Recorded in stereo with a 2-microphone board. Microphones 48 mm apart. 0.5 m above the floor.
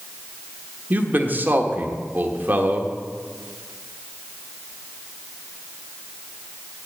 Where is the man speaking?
40° right (ahead or behind), 1.3 m.